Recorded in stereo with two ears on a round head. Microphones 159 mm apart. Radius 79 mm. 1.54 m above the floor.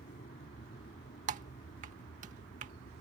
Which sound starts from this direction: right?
Typing on a keyboard, at 1.3 s.